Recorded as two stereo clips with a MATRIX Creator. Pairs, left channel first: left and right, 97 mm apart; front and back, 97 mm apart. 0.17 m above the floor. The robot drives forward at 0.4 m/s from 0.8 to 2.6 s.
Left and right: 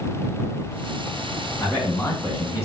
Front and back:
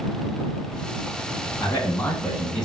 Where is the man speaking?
50° left, 1.2 m; by 2.7 s 95° left, 1.1 m.